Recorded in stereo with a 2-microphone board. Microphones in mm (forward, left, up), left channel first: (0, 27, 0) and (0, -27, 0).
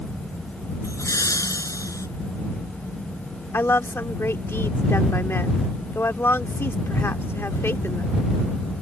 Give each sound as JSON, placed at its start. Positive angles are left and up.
{"t": 0.8, "sound": "laughter", "side_deg": 85}
{"t": 3.5, "sound": "a woman speaking", "side_deg": 50}